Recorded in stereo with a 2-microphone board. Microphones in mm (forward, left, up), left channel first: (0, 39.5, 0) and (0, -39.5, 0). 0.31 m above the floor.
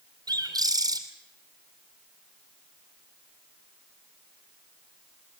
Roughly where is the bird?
Right.